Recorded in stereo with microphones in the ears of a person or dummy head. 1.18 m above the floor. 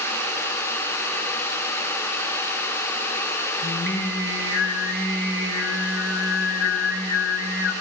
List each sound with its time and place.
3.6 s singing: 80° left, 6 m